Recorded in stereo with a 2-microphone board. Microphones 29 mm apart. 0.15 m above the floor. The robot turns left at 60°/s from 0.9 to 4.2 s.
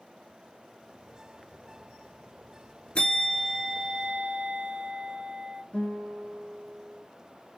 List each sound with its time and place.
3.0 s a bell: 40° left, 0.6 m; by 5.6 s 35° right, 0.6 m
5.7 s a guitar: 40° left (ahead or behind), 1.7 m